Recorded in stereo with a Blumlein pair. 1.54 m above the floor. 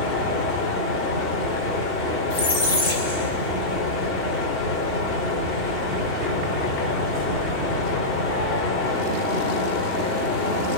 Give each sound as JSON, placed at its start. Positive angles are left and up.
{"t": 0.0, "sound": "a fan", "azimuth_deg": 35, "distance_m": 3.0}
{"t": 2.3, "sound": "a squeak", "azimuth_deg": 50, "distance_m": 4.0}